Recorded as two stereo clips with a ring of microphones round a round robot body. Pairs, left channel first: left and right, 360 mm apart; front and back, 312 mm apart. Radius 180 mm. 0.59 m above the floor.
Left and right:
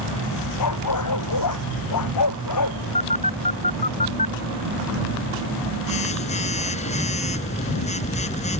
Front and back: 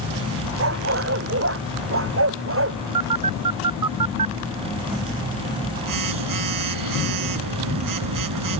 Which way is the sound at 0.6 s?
135° left.